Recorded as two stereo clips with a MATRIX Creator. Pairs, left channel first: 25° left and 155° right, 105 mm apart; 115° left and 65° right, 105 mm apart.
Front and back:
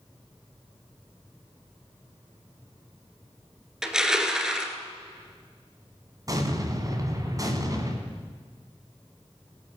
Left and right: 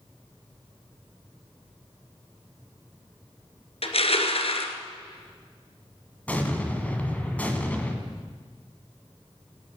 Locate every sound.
3.8 s crushing: 120° left, 1.4 m
6.3 s an explosion: straight behind, 1.8 m